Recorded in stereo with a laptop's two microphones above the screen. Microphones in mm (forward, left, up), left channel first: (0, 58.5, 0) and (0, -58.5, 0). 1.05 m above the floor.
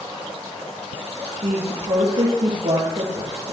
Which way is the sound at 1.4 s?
70° right (ahead or behind).